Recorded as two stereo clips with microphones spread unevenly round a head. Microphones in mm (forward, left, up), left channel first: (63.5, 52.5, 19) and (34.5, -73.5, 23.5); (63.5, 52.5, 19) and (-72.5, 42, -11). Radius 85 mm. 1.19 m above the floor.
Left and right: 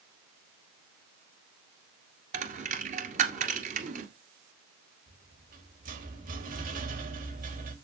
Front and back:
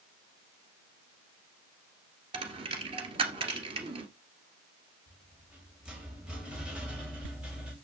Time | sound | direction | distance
2.3 | a dropped coin | 115° right | 1.9 m
5.1 | a rattle | 95° right | 3 m